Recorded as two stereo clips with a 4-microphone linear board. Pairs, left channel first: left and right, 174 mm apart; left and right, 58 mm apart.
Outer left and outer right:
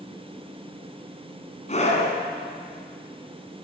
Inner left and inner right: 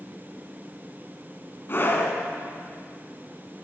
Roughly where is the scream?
Left.